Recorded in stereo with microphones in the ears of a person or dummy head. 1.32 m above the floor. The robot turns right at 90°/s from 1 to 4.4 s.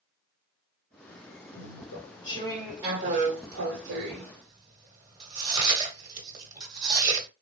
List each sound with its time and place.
1.5 s chewing: 75° left (ahead or behind), 1.3 m; by 7.3 s 25° right (ahead or behind), 1.3 m